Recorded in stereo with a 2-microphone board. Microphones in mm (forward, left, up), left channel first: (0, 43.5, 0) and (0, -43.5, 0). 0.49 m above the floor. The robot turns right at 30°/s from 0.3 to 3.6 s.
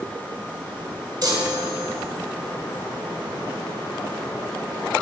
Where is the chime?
50° right (ahead or behind), 1.0 m; by 1.9 s 60° right (ahead or behind), 1.0 m.